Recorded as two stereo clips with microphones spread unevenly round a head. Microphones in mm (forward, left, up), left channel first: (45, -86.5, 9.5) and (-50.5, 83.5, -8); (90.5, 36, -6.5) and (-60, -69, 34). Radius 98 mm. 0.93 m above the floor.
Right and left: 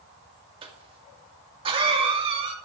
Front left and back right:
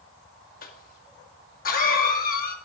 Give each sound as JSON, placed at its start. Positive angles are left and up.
{"t": 0.6, "sound": "a cough", "azimuth_deg": 60, "distance_m": 1.9}